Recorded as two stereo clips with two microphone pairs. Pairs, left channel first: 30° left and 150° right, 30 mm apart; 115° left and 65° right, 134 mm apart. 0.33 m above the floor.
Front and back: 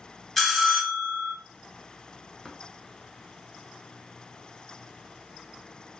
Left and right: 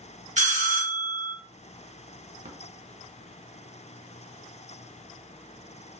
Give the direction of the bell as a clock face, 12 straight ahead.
2 o'clock.